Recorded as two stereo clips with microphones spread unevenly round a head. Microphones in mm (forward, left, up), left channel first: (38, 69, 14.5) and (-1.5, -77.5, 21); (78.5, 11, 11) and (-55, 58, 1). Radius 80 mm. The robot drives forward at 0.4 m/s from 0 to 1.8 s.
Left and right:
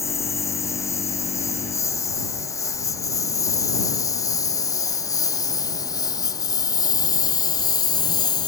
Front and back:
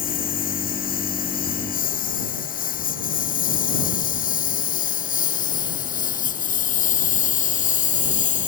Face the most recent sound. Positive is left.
turn(degrees=10)